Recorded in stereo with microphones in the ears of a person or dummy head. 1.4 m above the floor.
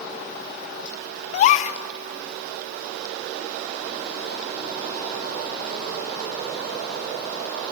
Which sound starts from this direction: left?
A gasp, at 1.3 s.